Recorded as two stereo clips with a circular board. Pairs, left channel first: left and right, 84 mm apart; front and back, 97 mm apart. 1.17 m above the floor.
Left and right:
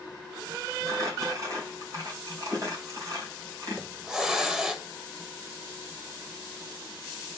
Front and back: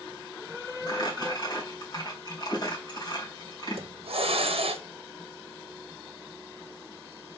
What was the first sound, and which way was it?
Crumpling, 45° right.